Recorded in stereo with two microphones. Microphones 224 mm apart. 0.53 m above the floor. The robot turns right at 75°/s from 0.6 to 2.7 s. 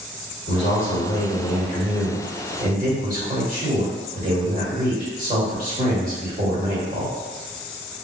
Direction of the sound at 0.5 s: 65° left.